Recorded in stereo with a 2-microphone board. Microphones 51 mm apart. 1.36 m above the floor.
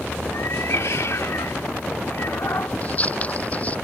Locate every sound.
0.3 s a cat meowing: 70° left (ahead or behind)
2.8 s scissors: 30° left (ahead or behind)